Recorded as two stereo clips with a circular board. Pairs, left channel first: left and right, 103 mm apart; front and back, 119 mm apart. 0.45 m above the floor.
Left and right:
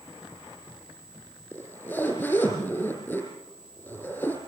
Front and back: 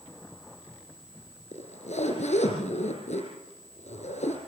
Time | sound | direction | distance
1.5 | a zipper | 20° left | 4.5 m